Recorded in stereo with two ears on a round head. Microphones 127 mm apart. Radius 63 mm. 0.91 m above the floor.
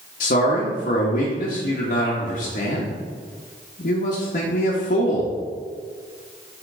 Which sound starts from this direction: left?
A man speaking, at 0.2 s.